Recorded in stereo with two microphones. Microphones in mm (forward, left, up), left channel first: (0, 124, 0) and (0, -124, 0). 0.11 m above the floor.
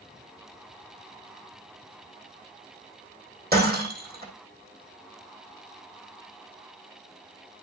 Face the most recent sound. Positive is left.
turn(degrees=-40)  # may be behind; listen again after turning